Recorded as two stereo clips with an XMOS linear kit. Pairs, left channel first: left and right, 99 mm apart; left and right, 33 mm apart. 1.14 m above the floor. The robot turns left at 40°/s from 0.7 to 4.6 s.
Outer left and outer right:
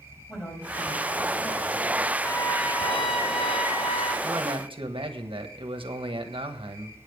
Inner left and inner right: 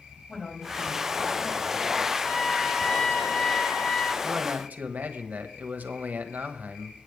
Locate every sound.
0.3 s a man speaking: straight behind, 5.5 m; by 2.1 s 125° left, 5.5 m
2.2 s a trumpet: 155° left, 2.5 m; by 4.1 s 75° left, 2.5 m
4.2 s a man speaking: 50° right (ahead or behind), 1.3 m; by 7.1 s 60° right (ahead or behind), 1.3 m